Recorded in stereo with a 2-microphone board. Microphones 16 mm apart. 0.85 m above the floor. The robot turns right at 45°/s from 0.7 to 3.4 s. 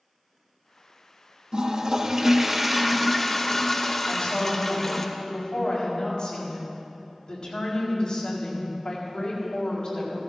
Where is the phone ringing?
No phone ringing in this recording.